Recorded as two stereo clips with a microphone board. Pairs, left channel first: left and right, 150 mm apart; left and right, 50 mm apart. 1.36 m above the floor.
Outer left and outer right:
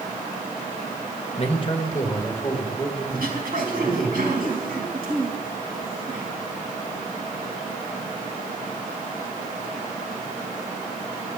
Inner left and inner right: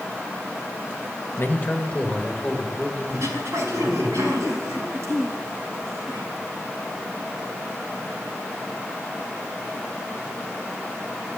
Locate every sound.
1.4 s a man speaking: 45° left (ahead or behind), 1.5 m; by 4.1 s centre (ahead or behind), 5 m
3.1 s throat clearing: 80° right, 5 m